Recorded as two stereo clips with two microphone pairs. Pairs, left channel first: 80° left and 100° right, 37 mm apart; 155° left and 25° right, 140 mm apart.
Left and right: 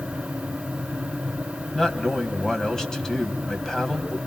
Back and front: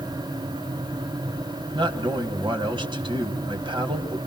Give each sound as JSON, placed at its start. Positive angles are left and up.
{"t": 1.8, "sound": "a man speaking", "azimuth_deg": 15, "distance_m": 2.0}